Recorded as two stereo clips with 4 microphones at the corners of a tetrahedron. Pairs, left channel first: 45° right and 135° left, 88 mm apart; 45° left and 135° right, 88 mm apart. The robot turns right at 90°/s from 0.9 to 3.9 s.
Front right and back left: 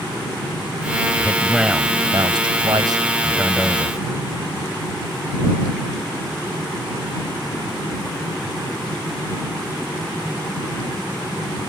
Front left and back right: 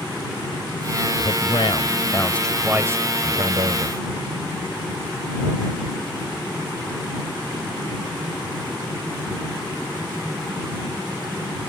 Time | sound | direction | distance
1.2 | a man speaking | 10° left | ?